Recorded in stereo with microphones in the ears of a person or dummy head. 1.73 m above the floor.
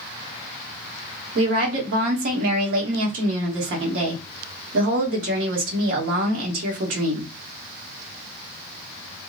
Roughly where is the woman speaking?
Right.